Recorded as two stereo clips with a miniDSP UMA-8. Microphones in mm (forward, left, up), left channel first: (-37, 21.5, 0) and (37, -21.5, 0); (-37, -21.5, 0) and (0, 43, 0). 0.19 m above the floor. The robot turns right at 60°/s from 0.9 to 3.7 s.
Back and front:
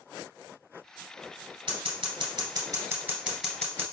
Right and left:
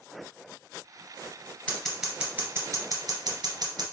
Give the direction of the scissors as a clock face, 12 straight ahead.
2 o'clock.